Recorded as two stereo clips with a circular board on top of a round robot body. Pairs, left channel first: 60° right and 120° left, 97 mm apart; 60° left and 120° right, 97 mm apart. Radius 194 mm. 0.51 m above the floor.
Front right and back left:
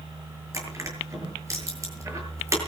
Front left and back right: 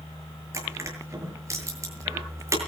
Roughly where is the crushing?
Behind.